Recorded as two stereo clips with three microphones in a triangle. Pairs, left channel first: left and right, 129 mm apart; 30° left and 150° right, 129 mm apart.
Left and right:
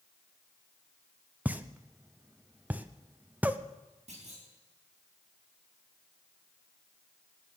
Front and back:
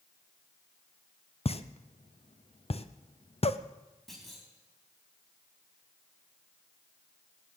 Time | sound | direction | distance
1.4 | a pop | 10° right | 0.7 m
4.1 | a clunk | 60° right | 5 m